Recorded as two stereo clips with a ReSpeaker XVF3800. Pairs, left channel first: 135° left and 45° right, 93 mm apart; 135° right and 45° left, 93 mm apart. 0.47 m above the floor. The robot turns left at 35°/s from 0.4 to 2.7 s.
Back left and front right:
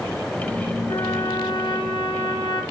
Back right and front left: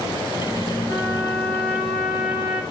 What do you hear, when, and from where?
0.9 s a trumpet: 175° left, 2 m; by 2.6 s 115° left, 2 m